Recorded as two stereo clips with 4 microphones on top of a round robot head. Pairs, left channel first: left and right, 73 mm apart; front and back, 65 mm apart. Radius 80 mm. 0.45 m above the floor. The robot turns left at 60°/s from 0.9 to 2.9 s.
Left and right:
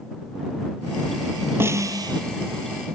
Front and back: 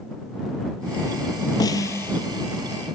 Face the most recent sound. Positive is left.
turn(degrees=-110)